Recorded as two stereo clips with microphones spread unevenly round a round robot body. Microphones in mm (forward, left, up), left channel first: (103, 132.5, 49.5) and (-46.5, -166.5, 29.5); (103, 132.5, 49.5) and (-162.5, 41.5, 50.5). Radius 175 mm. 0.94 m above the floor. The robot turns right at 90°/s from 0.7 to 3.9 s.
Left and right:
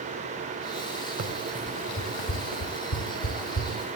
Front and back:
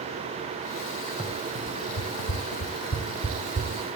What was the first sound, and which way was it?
Running footsteps, 80° right.